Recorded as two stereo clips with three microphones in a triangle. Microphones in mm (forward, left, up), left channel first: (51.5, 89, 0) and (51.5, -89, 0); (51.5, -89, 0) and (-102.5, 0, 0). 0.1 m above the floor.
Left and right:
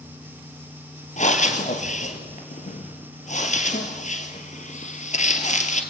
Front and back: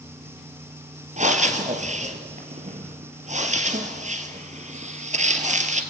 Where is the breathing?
120° left, 2 m.